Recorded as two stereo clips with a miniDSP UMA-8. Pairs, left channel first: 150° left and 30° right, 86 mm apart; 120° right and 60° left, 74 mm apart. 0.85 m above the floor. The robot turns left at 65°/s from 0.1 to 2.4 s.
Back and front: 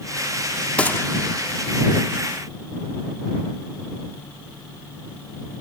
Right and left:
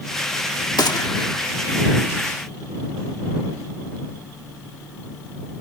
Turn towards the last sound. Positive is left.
turn(degrees=120)